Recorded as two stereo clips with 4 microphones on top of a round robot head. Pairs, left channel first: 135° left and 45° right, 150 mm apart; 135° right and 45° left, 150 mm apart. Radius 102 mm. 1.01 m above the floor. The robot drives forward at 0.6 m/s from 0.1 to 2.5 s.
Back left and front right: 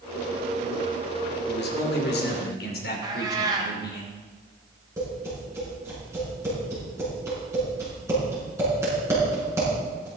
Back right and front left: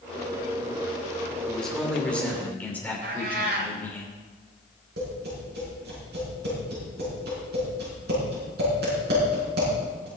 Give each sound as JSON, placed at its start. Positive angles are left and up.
{"t": 1.5, "sound": "a man speaking", "azimuth_deg": 140, "distance_m": 2.5}
{"t": 3.0, "sound": "a cat meowing", "azimuth_deg": 20, "distance_m": 1.3}
{"t": 5.0, "sound": "tapping", "azimuth_deg": 25, "distance_m": 6.5}